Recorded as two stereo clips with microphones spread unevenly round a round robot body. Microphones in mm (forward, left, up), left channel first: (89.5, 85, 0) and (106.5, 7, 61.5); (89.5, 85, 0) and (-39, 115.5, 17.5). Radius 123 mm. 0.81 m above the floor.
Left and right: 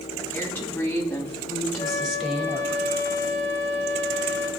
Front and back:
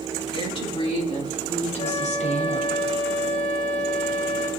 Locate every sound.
0.3 s a woman speaking: 35° left, 6 m; by 2.8 s 5° left, 3.5 m
1.8 s a flute: 30° left, 4.5 m